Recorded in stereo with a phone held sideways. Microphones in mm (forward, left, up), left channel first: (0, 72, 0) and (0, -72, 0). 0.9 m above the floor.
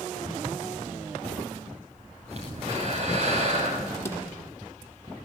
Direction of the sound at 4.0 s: 20° left (ahead or behind).